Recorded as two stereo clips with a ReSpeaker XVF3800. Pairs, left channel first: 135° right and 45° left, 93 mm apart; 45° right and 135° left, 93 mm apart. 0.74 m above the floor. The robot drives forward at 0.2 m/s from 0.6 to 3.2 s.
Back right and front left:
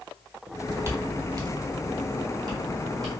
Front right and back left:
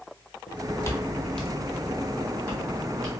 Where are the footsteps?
20° right, 1.0 m; by 3.1 s 90° left, 1.7 m.